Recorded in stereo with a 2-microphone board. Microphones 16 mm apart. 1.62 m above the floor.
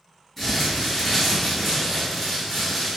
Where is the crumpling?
15° left (ahead or behind), 1.2 m.